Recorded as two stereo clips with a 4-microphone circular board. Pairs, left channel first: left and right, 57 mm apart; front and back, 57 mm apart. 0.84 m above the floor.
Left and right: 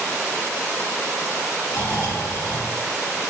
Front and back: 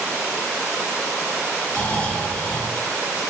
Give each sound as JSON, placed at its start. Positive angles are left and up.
{"t": 1.7, "sound": "snoring", "azimuth_deg": 60, "distance_m": 2.0}